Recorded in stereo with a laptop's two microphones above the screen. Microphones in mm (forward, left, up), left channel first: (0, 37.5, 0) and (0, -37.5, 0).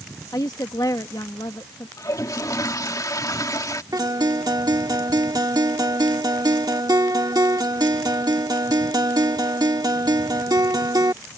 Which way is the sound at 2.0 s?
55° left (ahead or behind).